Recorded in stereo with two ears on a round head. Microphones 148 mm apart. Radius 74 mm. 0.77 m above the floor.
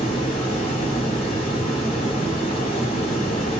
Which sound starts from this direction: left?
Running water, at 0.0 s.